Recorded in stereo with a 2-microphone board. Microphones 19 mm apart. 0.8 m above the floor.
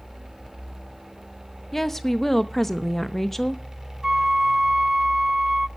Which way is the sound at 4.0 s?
40° right (ahead or behind).